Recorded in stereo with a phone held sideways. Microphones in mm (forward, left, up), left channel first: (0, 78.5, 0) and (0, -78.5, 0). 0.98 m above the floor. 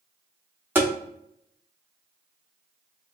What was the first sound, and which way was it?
Tapping, 10° right (ahead or behind).